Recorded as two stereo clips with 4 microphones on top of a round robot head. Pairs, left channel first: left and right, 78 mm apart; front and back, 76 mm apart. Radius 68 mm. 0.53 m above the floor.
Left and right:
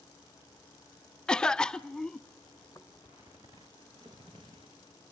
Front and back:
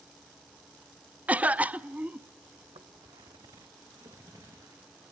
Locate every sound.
1.3 s a cough: 150° left, 0.6 m
2.6 s footsteps: 160° left, 1.4 m; by 4.9 s 125° right, 3.5 m